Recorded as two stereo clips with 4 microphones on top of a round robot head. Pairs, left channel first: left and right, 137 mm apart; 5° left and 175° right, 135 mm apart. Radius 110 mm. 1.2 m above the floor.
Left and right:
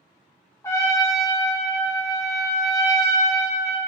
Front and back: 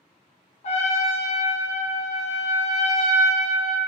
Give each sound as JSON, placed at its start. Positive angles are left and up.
{"t": 0.6, "sound": "a trumpet", "azimuth_deg": 25, "distance_m": 0.6}